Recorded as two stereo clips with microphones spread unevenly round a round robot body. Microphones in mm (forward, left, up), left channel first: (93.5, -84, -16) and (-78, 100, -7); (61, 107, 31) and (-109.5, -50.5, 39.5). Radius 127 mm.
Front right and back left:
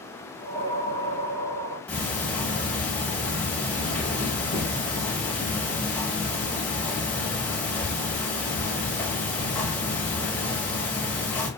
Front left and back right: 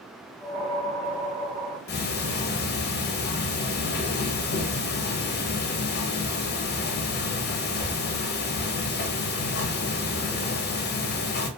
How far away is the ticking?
About 0.6 m.